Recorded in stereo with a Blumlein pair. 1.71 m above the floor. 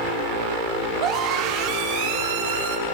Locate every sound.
1.0 s a scream: 35° right, 5.5 m; by 2.8 s 55° right, 5.5 m